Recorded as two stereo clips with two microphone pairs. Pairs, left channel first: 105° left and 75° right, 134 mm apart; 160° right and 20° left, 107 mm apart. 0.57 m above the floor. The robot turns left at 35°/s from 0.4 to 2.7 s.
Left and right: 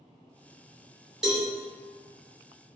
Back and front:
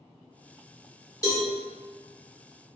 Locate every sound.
1.2 s a cowbell: 160° right, 1.0 m; by 1.5 s 165° right, 1.0 m